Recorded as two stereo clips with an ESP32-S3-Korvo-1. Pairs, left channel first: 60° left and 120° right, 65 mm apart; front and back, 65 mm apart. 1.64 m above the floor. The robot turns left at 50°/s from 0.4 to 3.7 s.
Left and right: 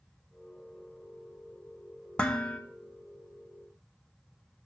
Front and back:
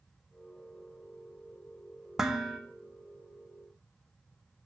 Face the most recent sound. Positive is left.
turn(degrees=35)